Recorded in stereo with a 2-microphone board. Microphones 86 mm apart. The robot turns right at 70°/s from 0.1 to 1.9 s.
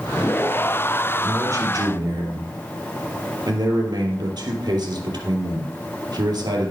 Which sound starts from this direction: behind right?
A man speaking, at 1.2 s.